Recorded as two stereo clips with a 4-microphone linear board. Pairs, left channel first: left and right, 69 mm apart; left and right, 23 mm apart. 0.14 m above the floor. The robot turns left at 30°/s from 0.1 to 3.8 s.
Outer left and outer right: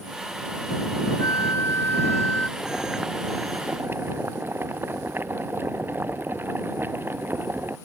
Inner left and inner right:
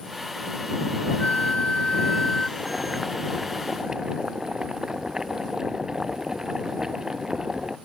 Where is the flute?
60° left; by 2.5 s 20° left.